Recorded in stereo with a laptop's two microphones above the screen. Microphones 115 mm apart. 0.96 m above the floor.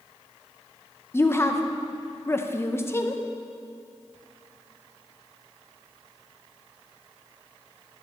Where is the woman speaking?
20° left (ahead or behind), 0.6 m.